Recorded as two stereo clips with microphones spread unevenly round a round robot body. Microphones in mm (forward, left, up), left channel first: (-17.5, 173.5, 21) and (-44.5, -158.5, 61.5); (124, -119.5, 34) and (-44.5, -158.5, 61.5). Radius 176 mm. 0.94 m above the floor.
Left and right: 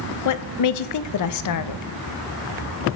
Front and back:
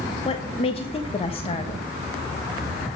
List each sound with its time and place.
0.2 s a woman speaking: 65° left, 0.6 m